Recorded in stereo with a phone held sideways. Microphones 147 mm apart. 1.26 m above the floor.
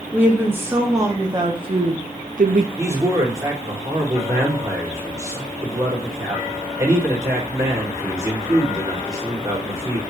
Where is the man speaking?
20° right (ahead or behind), 3.5 m.